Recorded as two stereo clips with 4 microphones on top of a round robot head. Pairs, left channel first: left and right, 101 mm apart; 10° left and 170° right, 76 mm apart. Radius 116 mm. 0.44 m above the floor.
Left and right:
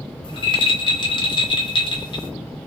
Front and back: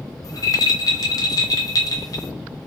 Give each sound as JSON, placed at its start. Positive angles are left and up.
{"t": 0.2, "sound": "a rattle", "azimuth_deg": 50, "distance_m": 0.8}